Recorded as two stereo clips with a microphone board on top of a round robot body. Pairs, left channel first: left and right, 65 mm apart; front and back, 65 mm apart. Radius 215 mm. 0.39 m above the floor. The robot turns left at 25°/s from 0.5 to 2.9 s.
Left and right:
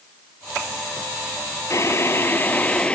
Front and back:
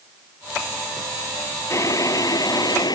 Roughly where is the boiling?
Ahead left.